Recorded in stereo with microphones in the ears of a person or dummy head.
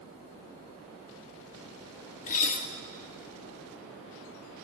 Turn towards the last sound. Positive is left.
turn(degrees=45)  # may be behind; listen again after turning